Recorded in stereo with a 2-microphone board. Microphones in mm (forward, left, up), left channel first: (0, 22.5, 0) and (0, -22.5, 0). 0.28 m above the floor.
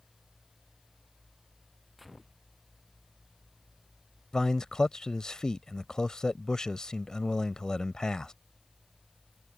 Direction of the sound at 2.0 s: Centre (ahead or behind).